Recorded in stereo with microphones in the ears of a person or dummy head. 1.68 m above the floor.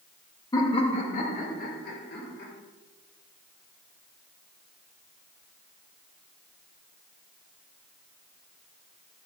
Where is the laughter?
20° left (ahead or behind), 1.9 m; by 2.5 s 60° left (ahead or behind), 3.5 m.